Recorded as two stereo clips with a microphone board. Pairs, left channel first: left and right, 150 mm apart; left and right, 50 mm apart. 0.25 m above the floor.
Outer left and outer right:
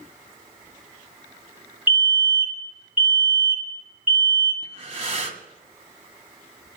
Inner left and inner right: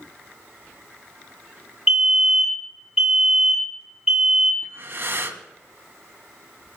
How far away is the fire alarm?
About 4 m.